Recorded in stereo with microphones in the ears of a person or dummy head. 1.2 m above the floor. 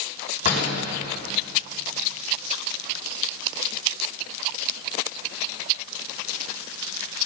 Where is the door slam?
45° left (ahead or behind), 5.5 m.